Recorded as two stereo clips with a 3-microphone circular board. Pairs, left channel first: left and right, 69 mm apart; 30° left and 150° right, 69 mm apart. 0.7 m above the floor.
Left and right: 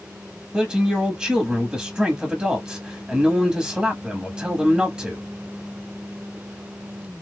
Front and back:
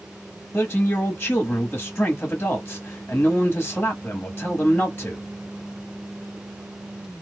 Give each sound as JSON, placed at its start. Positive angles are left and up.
{"t": 0.5, "sound": "a man speaking", "azimuth_deg": -25, "distance_m": 1.1}